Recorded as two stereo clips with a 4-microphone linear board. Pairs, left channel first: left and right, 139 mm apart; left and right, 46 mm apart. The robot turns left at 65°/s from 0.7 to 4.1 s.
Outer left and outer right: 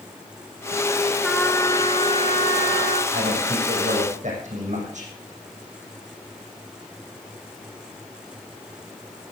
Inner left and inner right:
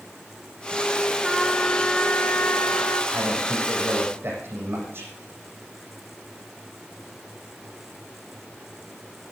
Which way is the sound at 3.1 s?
60° right.